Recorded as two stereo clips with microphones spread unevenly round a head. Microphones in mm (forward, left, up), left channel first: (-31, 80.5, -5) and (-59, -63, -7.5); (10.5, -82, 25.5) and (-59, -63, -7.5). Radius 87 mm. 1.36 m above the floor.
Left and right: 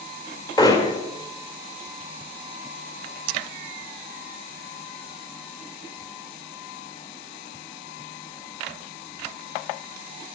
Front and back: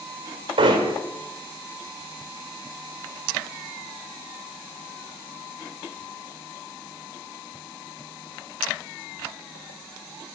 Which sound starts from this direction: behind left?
Hammering, at 0.6 s.